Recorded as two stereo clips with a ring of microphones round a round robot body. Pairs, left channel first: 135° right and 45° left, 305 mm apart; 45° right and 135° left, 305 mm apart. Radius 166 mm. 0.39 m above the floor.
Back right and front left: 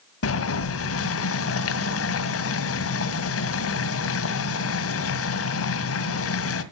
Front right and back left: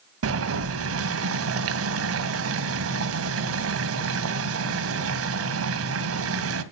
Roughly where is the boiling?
Behind.